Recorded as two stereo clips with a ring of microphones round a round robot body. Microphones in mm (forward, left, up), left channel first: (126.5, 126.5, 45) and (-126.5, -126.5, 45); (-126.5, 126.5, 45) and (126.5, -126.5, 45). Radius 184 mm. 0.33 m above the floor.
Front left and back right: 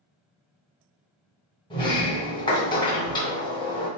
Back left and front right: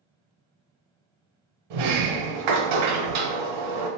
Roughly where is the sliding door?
Ahead right.